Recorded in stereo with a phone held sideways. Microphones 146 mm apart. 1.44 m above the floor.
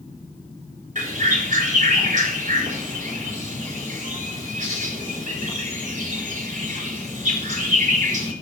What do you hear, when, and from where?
0.9 s a bird: 65° right (ahead or behind), 4.5 m